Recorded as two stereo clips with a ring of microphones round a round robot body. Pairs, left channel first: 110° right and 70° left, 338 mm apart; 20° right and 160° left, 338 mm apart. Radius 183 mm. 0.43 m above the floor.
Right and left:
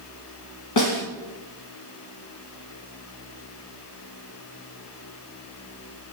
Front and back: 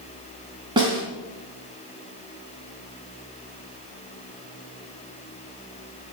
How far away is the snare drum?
About 3 m.